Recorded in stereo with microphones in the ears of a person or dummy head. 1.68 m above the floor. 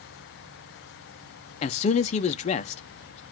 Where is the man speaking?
35° left (ahead or behind), 0.7 m.